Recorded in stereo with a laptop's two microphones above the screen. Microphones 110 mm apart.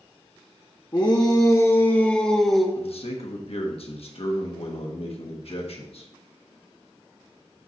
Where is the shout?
40° left (ahead or behind), 1.0 m; by 2.6 s centre (ahead or behind), 1.1 m.